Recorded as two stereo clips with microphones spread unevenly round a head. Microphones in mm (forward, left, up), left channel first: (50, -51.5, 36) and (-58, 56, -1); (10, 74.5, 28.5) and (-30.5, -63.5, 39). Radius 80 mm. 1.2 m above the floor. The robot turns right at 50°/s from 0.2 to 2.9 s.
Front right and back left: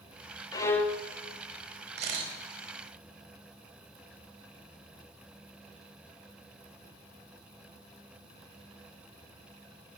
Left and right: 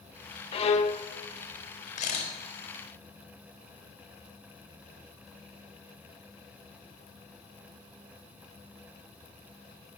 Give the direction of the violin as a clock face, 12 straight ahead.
11 o'clock.